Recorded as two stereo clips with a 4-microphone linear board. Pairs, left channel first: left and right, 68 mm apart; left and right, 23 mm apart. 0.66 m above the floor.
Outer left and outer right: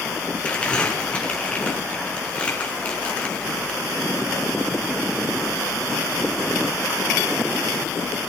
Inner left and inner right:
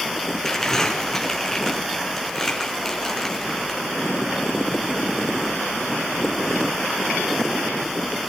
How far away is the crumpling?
About 5.5 m.